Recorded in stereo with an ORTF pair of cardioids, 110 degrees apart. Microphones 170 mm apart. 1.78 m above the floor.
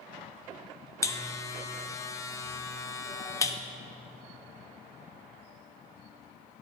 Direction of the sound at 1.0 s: 20° left.